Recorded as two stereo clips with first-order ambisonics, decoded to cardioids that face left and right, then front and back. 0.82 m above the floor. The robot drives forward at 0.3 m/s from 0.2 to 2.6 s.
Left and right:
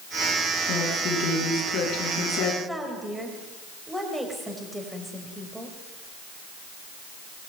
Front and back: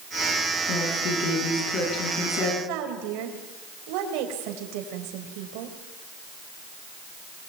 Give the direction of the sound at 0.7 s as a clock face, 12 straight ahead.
10 o'clock.